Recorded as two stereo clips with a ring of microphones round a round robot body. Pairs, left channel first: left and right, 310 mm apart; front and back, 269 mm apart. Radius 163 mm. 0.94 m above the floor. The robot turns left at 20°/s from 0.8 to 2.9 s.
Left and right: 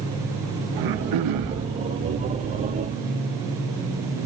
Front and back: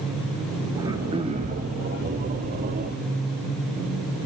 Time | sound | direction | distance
0.8 | throat clearing | 100° right | 1.6 m